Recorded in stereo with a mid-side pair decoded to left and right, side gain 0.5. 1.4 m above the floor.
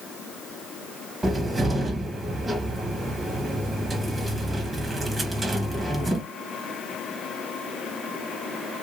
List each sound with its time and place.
1.2 s a cupboard door: 25° right, 1.3 m